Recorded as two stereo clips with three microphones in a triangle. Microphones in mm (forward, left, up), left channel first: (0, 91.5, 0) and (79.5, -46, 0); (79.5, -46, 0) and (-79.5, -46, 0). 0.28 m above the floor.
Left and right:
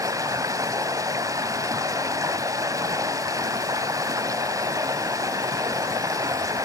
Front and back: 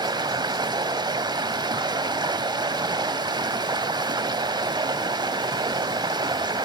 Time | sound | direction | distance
0.0 | running water | 120° right | 0.8 m